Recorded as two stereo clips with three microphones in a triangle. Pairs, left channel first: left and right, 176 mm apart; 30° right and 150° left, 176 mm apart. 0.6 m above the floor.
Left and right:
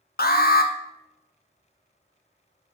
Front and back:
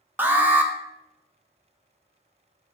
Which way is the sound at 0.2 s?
70° left.